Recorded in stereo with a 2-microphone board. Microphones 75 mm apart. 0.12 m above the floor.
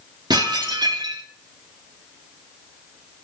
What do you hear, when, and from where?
0.3 s dishes clattering: 70° right (ahead or behind), 2.5 m